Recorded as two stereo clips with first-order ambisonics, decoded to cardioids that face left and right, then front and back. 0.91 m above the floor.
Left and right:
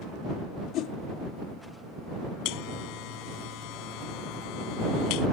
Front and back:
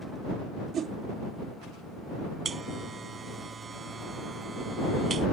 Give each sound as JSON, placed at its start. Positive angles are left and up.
{"t": 0.7, "sound": "a whoosh", "azimuth_deg": 125}
{"t": 2.5, "sound": "a buzzer", "azimuth_deg": 110}